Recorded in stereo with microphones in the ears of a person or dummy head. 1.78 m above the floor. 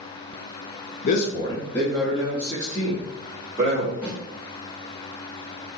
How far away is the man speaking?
About 0.5 m.